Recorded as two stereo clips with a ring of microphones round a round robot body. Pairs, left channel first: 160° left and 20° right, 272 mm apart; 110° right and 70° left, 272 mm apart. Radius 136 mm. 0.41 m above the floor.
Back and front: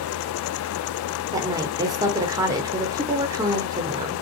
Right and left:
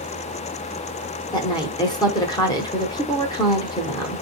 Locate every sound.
1.3 s a woman speaking: 70° right, 0.8 m